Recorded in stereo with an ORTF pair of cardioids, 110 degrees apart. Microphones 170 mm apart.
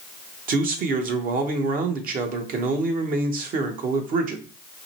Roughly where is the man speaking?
Ahead right.